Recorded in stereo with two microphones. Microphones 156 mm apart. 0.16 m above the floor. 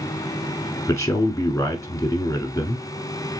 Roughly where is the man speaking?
Centre.